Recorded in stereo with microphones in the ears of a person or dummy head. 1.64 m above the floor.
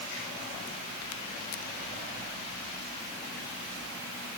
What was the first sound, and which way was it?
Only background noise.